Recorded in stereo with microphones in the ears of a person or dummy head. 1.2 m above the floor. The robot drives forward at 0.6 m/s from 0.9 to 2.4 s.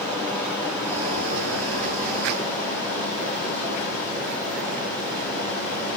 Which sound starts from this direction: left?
Running water, at 0.0 s.